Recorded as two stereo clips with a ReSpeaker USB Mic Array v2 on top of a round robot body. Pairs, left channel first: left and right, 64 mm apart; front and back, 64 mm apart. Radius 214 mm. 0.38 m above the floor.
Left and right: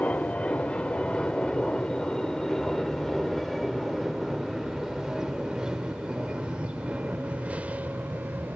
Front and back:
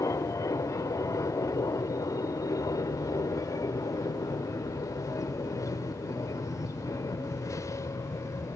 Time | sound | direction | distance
0.0 | an aircraft | 25° left | ?